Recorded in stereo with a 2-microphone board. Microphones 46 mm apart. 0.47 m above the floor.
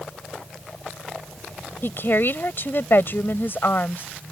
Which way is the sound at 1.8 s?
55° left (ahead or behind).